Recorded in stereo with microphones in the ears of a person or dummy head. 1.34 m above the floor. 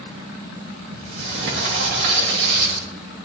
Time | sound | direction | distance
0.9 | a sliding door | 65° right (ahead or behind) | 3 m